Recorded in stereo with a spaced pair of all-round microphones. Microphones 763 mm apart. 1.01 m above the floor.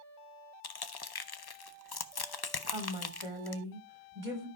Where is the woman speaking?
45° right (ahead or behind), 3.5 m.